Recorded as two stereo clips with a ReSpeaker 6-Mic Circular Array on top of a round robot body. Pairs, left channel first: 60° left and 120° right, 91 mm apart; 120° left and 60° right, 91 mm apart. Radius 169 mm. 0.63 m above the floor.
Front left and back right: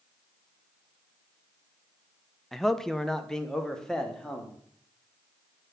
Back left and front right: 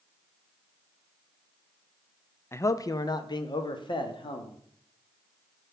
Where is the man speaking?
145° left, 0.6 m.